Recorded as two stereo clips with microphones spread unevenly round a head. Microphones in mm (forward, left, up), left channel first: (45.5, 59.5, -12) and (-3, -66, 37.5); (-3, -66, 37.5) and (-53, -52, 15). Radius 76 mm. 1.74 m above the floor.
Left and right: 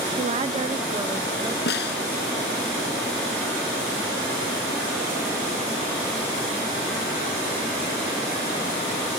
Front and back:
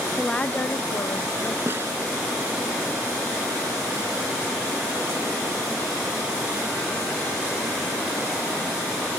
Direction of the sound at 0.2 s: 85° right.